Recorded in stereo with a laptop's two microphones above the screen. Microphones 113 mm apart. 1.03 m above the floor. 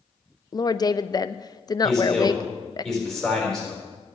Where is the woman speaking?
35° left (ahead or behind), 0.6 m.